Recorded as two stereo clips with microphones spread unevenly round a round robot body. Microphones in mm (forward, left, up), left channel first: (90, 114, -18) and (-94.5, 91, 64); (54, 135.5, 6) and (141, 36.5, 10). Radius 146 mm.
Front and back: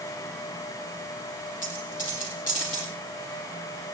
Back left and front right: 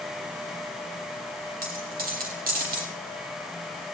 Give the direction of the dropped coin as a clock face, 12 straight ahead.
2 o'clock.